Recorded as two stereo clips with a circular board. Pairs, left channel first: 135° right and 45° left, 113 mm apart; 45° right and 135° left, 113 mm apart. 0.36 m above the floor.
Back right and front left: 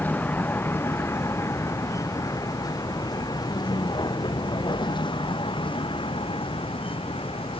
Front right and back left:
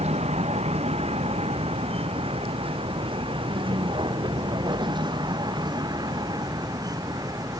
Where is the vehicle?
150° left; by 7.6 s 165° right.